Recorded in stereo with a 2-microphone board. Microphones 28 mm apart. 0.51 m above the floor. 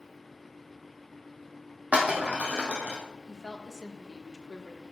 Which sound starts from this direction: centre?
A woman speaking, at 3.3 s.